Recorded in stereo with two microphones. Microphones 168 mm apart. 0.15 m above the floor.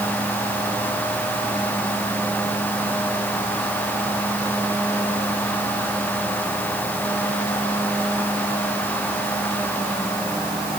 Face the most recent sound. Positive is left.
No sound to turn to.